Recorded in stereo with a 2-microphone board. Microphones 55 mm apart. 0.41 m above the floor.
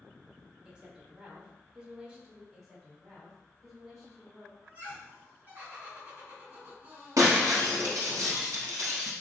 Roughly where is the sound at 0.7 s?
Centre.